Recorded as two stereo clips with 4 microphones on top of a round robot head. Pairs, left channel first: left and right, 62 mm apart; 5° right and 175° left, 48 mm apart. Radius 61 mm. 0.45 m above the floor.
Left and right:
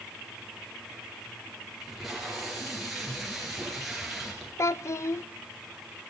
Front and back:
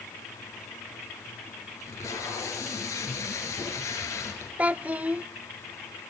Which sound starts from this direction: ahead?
Tape being pulled, at 1.8 s.